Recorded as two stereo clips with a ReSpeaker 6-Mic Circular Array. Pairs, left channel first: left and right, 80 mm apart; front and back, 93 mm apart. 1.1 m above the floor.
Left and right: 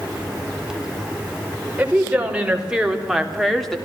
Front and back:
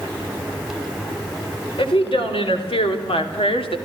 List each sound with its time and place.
1.8 s a woman speaking: 15° right, 4.5 m; by 3.8 s 5° left, 2.5 m